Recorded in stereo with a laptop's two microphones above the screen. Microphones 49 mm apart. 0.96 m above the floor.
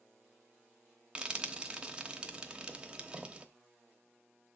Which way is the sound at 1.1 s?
20° right (ahead or behind).